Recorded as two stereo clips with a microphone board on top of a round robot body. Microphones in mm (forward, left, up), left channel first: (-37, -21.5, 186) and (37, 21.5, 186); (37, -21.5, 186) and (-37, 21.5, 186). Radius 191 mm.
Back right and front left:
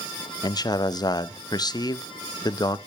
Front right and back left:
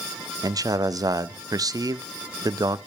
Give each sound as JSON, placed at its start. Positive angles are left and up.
{"t": 0.4, "sound": "a man speaking", "azimuth_deg": -175, "distance_m": 0.7}